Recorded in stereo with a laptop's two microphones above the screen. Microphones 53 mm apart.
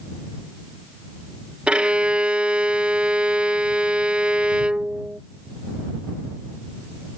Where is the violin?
20° right (ahead or behind).